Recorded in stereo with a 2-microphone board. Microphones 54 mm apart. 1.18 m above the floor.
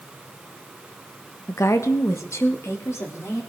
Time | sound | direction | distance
1.5 | a woman speaking | 60° left (ahead or behind) | 1.1 m